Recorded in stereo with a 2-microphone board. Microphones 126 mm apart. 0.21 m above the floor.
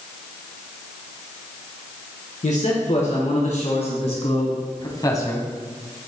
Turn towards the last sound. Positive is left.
turn(degrees=15)  # may be behind; listen again after turning